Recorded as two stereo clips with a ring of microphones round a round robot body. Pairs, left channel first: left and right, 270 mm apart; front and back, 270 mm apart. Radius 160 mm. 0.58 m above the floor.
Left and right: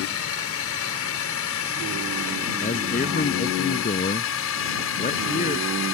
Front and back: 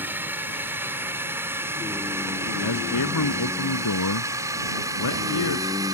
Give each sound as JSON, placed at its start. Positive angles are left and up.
{"t": 0.0, "sound": "a drone", "azimuth_deg": 100}
{"t": 2.6, "sound": "a man speaking", "azimuth_deg": 30}